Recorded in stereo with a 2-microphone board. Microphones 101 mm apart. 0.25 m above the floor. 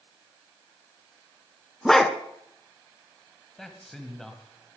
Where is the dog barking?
5° left (ahead or behind), 1.2 m.